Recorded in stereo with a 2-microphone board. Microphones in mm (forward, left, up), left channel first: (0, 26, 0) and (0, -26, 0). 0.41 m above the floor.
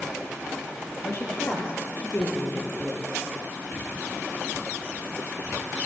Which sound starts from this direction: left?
A woman speaking, at 1.0 s.